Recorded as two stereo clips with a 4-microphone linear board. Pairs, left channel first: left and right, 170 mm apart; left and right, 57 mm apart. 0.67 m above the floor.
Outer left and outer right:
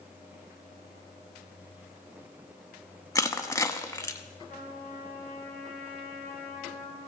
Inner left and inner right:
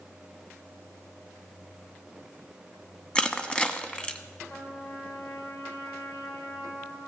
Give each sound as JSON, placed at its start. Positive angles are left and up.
{"t": 3.1, "sound": "crushing", "side_deg": 15, "distance_m": 0.8}
{"t": 4.5, "sound": "a trumpet", "side_deg": 65, "distance_m": 6.0}